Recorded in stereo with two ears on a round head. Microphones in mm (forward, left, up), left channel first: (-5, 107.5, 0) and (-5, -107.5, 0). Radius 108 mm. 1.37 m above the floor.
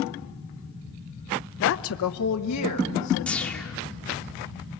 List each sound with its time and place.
1.6 s a woman speaking: 45° left (ahead or behind), 0.7 m; by 3.7 s 85° left, 2.5 m
3.3 s a whoosh: 5° left (ahead or behind), 1.9 m